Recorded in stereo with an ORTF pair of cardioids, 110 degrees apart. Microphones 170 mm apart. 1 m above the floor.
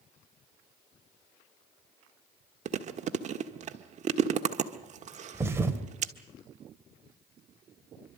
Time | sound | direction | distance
2.6 | chewing | 45° right | 1.5 m
5.3 | a thud | 15° right | 1.8 m